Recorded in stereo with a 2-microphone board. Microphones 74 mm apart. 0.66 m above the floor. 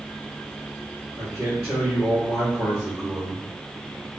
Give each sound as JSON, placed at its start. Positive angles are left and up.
{"t": 1.2, "sound": "a man speaking", "side_deg": -50, "distance_m": 1.6}